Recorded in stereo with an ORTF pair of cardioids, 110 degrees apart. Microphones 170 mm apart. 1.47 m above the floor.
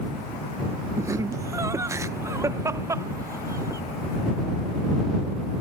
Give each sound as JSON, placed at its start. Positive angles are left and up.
{"t": 1.0, "sound": "laughter", "azimuth_deg": -20}